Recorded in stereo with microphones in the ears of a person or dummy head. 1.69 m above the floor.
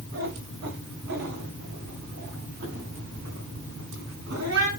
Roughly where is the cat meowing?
Right.